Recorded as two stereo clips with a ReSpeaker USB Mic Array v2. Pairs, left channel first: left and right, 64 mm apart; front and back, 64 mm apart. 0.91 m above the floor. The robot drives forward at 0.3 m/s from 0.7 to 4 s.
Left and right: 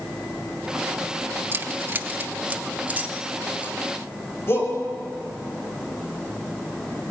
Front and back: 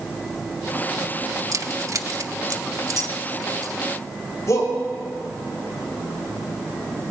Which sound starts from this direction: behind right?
Keys jangling, at 1.5 s.